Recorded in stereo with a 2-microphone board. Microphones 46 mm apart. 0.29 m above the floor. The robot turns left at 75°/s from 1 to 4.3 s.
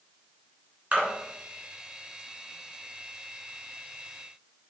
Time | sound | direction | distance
0.9 | a splash | 25° right (ahead or behind) | 3 m